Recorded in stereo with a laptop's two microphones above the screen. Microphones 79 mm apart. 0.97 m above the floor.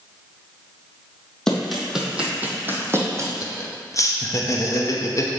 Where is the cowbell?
No cowbell in this recording.